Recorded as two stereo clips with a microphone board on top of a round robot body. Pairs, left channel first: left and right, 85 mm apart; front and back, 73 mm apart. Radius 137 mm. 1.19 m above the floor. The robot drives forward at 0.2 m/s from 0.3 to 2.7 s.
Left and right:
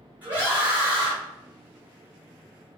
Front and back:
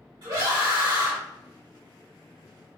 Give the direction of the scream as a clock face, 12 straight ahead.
5 o'clock.